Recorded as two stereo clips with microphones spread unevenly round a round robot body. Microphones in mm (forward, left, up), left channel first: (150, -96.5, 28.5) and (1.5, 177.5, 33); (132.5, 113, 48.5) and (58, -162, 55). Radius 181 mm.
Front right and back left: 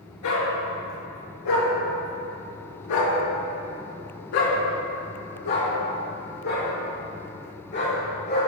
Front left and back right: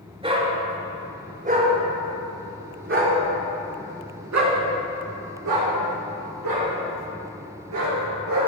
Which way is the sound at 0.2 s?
35° right.